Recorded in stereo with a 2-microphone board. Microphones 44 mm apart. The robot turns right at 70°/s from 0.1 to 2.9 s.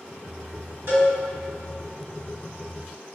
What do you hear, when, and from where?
0.9 s a cowbell: 65° right (ahead or behind), 1.8 m; by 1.1 s 60° right (ahead or behind), 1.8 m